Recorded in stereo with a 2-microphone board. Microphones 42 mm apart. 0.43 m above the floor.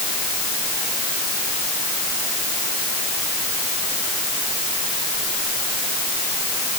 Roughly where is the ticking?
I don't hear ticking.